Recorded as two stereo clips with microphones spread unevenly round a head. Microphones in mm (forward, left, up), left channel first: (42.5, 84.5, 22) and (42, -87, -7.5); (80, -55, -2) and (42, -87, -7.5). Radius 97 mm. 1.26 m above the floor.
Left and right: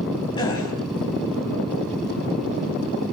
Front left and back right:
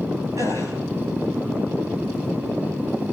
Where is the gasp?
155° left, 3.5 m.